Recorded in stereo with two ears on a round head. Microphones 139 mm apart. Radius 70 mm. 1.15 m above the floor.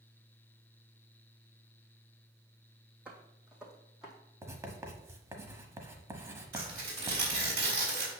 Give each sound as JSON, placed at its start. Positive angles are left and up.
{"t": 3.0, "sound": "footsteps", "side_deg": -5, "distance_m": 2.0}
{"t": 4.4, "sound": "writing", "side_deg": -20, "distance_m": 1.0}
{"t": 6.5, "sound": "tearing paper", "side_deg": -65, "distance_m": 3.0}